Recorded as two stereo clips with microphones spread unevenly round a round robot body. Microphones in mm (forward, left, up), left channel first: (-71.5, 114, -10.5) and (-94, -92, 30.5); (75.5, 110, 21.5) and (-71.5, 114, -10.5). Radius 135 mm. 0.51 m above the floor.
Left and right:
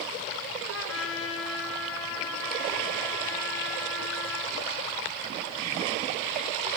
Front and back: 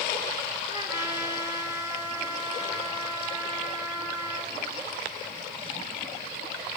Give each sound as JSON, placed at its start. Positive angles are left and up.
{"t": 0.7, "sound": "a trumpet", "azimuth_deg": 105, "distance_m": 6.5}